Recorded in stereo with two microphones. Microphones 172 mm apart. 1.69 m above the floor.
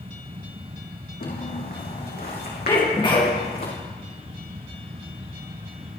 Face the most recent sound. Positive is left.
turn(degrees=25)  # may be behind; listen again after turning